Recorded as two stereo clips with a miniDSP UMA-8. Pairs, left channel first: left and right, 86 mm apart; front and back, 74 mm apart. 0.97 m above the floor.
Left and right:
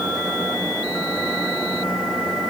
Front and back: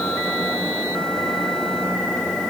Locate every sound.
Only background noise.